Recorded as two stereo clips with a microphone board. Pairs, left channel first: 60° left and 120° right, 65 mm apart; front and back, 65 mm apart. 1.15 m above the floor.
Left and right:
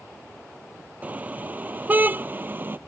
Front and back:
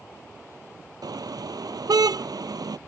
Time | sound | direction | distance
1.0 | a car horn | 175° left | ?